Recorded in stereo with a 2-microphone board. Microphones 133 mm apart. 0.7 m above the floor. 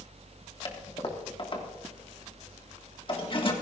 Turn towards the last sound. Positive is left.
turn(degrees=40)  # may be behind; listen again after turning